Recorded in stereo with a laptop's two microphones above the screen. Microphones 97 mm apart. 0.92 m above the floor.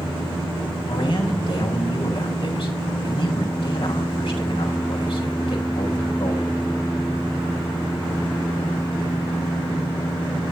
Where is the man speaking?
60° left (ahead or behind), 6 m.